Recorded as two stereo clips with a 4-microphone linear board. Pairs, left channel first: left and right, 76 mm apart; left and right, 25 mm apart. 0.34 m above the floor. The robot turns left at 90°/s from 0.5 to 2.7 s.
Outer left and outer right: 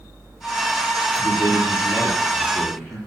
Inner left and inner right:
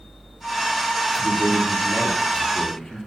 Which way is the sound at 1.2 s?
140° left.